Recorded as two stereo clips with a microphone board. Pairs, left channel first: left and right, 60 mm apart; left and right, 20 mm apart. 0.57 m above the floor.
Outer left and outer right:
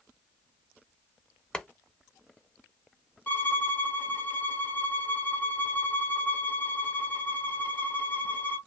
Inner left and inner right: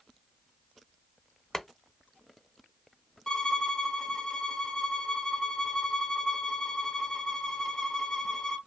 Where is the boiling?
15° left (ahead or behind), 0.5 m.